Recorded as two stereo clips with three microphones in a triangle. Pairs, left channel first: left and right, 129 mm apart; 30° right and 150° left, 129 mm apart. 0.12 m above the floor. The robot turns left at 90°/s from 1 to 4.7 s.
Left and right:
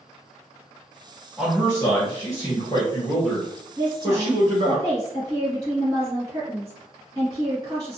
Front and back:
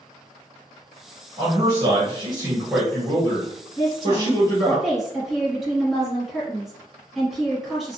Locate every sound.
1.4 s a man speaking: 160° right, 1.2 m; by 4.8 s 100° right, 1.2 m
3.8 s a woman speaking: 35° right, 1.6 m; by 8.0 s 120° right, 1.6 m